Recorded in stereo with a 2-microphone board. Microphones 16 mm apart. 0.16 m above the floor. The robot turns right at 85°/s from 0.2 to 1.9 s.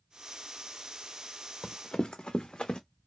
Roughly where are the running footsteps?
Left.